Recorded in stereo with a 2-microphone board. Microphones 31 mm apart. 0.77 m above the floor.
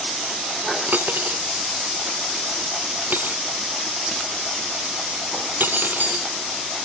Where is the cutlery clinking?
85° right.